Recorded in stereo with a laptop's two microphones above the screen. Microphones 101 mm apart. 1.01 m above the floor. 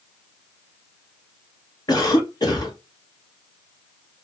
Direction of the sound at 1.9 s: 40° left (ahead or behind).